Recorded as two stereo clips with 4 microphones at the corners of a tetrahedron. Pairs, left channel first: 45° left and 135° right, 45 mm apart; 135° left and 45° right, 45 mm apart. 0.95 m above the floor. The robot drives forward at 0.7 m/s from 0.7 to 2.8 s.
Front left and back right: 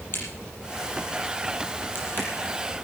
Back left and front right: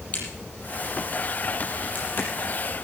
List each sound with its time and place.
0.1 s a crack: 80° left, 6 m; by 2.3 s 90° left, 6 m